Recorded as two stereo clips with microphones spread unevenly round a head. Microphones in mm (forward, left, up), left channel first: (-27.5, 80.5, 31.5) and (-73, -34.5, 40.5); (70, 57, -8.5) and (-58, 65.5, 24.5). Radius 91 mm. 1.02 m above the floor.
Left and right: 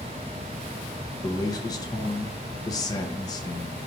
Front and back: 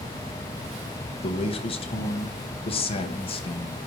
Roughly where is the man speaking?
Ahead.